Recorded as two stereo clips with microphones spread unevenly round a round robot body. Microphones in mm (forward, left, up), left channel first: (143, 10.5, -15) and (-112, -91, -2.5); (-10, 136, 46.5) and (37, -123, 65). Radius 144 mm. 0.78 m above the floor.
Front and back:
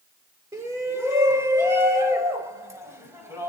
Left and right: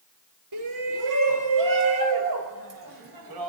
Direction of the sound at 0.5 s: 80° right.